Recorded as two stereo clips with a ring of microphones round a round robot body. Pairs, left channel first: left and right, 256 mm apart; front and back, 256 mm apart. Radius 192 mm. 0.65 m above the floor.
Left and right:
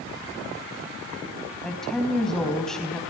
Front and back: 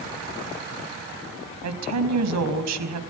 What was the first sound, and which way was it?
A woman speaking, straight behind.